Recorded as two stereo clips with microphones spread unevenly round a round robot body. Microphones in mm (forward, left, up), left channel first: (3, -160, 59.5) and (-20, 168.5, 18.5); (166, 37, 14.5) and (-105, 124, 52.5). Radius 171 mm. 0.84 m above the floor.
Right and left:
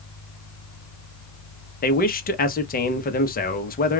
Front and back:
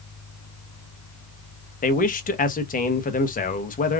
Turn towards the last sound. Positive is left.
turn(degrees=-30)